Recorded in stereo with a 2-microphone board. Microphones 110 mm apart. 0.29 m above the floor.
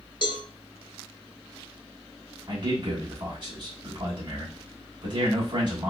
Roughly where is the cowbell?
Left.